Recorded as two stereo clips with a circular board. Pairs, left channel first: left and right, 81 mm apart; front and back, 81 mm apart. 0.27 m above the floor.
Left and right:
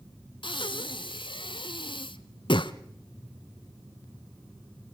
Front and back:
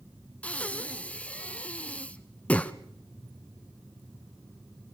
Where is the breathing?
75° left, 0.7 m.